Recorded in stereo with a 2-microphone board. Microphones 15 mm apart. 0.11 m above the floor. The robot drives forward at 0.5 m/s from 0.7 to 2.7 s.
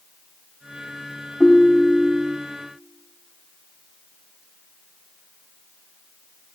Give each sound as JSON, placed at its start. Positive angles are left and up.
{"t": 1.4, "sound": "a ringtone", "side_deg": 55, "distance_m": 2.5}